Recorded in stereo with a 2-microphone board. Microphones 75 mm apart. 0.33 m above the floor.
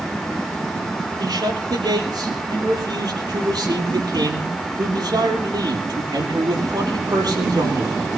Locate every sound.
1.2 s a man speaking: 65° right (ahead or behind), 10 m